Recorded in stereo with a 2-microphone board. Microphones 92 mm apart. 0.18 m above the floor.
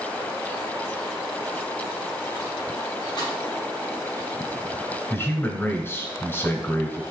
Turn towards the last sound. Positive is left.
turn(degrees=25)  # may be behind; listen again after turning